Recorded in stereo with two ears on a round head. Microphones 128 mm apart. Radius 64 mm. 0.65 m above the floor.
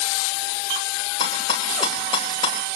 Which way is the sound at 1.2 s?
35° left (ahead or behind).